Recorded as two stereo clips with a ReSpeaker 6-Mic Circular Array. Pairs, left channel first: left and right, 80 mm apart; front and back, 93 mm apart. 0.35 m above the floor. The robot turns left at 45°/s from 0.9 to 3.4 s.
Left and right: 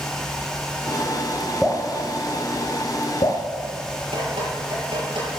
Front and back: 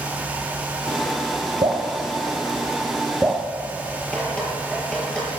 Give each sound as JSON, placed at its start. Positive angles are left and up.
{"t": 1.6, "sound": "dripping", "azimuth_deg": 180, "distance_m": 3.0}
{"t": 4.1, "sound": "dripping", "azimuth_deg": -80, "distance_m": 7.0}